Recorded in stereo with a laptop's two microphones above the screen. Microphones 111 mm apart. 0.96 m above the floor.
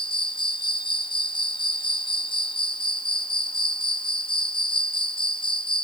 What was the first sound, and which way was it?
An insect, 50° left (ahead or behind).